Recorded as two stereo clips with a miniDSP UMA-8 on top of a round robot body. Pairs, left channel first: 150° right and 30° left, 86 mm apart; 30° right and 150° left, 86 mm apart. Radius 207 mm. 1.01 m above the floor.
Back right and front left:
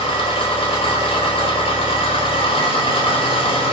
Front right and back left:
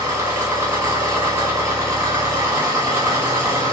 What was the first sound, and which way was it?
An engine running, 155° right.